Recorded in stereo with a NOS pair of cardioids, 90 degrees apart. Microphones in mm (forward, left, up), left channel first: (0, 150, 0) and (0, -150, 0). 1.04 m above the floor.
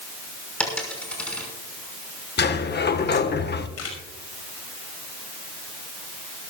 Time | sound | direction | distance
0.6 | a dropped coin | 5° left | 5.5 m
2.4 | a sliding door | 35° left | 1.4 m
3.8 | a camera shutter | 55° left | 5.5 m